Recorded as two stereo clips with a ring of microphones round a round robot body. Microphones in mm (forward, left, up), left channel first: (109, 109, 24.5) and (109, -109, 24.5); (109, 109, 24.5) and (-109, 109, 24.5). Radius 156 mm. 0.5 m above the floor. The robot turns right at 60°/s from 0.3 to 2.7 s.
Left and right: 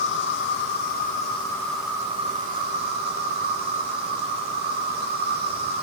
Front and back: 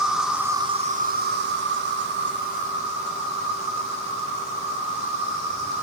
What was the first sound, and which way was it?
An insect, 95° left.